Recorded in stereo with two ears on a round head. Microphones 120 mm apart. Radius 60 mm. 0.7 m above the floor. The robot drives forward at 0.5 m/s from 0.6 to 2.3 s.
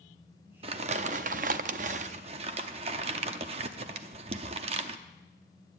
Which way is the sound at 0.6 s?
45° right (ahead or behind).